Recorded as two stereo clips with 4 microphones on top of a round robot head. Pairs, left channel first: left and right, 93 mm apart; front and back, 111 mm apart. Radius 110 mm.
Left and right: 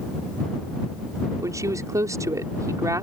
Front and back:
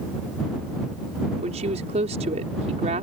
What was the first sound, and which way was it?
A woman speaking, 145° right.